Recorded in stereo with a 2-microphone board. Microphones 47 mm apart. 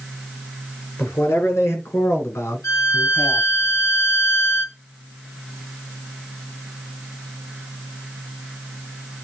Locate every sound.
1.0 s a man speaking: 70° left (ahead or behind), 4.5 m; by 3.5 s 60° left (ahead or behind), 1.8 m
2.6 s a violin: 75° left (ahead or behind), 3 m